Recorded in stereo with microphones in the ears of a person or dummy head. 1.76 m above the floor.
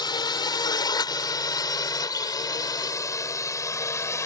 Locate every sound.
0.0 s a drone: 25° left (ahead or behind); by 4.3 s 15° left (ahead or behind)